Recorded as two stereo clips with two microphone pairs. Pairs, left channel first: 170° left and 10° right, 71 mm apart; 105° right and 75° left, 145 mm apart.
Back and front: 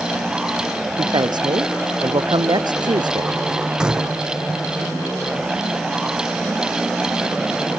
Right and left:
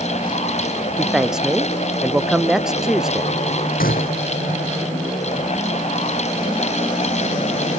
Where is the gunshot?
85° right.